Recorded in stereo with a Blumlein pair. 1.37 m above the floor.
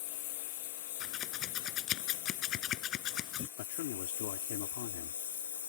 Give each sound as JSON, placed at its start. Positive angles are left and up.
{"t": 0.0, "sound": "a lawn mower", "azimuth_deg": 50}
{"t": 1.0, "sound": "scissors", "azimuth_deg": 30}
{"t": 3.6, "sound": "a man speaking", "azimuth_deg": 50}